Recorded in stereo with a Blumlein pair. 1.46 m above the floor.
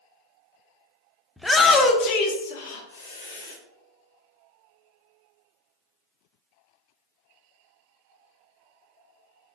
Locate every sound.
1.4 s a shout: straight ahead, 0.7 m; by 3.6 s 70° left, 1.5 m